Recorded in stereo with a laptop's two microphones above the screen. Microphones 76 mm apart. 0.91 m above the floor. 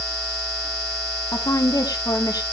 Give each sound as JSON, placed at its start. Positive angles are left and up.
{"t": 1.3, "sound": "a woman speaking", "side_deg": 60, "distance_m": 2.0}